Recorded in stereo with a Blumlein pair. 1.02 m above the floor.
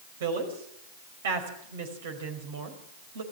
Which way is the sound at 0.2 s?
60° right.